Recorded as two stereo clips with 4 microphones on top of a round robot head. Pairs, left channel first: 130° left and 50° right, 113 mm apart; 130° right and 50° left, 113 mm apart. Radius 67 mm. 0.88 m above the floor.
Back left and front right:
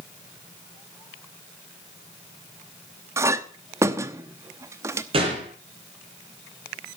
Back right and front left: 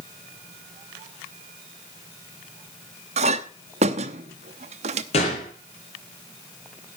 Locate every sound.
3.2 s a clink: 15° left, 0.9 m
5.1 s a gunshot: 95° right, 5 m